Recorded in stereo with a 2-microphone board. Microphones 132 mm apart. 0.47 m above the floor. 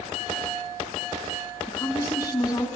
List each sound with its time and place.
1.7 s a woman speaking: 30° left (ahead or behind), 4 m